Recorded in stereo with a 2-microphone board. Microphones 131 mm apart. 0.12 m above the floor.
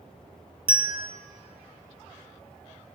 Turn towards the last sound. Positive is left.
turn(degrees=-40)  # may be behind; listen again after turning